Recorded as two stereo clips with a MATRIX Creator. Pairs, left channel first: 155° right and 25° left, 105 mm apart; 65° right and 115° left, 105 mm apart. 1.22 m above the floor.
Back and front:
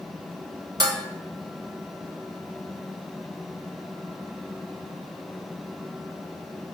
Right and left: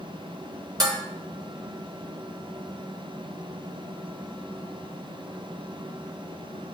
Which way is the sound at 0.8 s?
70° left.